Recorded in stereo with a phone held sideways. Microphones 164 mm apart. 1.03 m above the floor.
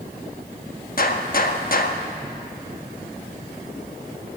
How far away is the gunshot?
About 1.0 m.